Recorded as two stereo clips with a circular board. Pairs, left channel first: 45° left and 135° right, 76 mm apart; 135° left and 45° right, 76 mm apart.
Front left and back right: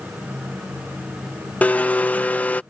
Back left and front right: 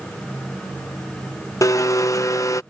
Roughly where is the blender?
Left.